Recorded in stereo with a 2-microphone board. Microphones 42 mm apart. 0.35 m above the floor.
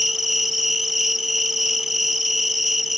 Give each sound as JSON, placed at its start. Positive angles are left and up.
{"t": 0.0, "sound": "an insect", "side_deg": -5, "distance_m": 1.2}